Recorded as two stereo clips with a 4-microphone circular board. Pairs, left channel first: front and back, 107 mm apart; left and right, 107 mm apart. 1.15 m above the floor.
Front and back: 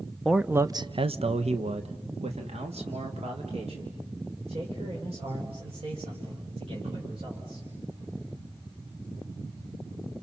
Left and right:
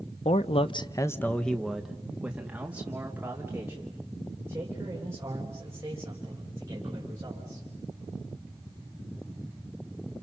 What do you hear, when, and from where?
0.2 s a man speaking: 90° left, 0.8 m; by 7.7 s 155° right, 7 m